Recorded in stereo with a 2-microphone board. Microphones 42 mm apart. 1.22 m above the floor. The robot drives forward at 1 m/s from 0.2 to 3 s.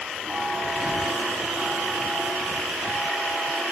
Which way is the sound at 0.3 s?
Centre (ahead or behind).